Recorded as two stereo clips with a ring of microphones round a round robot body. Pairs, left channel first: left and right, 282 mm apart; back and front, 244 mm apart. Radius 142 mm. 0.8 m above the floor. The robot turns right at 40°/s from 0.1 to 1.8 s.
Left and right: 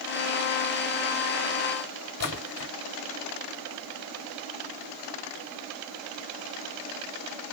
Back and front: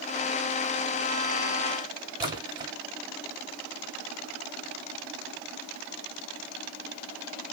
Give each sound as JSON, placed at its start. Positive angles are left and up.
{"t": 2.2, "sound": "a splash", "azimuth_deg": 70, "distance_m": 1.5}